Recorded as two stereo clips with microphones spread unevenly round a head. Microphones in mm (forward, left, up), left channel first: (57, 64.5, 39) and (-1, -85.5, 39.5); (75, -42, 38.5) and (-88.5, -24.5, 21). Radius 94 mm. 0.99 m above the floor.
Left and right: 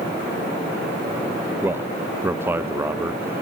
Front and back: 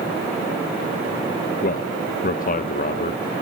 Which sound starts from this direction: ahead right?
A man speaking, at 1.6 s.